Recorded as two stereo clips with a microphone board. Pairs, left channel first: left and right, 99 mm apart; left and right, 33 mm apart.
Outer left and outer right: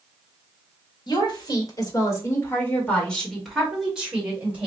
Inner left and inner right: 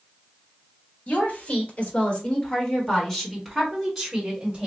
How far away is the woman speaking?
About 1.8 m.